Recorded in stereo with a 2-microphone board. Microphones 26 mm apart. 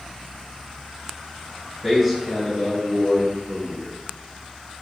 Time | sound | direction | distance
1.8 | a man speaking | 10° right (ahead or behind) | 1.4 m